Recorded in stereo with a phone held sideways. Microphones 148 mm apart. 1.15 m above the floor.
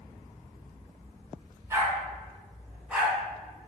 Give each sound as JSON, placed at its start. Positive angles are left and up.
{"t": 1.7, "sound": "a dog barking", "side_deg": -20, "distance_m": 3.0}